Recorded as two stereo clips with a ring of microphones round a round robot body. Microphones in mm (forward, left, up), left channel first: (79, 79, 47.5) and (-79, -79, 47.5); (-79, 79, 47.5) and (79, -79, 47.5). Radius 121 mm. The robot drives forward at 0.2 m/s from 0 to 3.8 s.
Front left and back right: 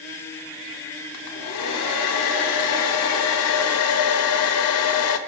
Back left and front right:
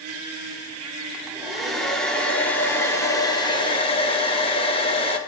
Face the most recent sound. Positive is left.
turn(degrees=65)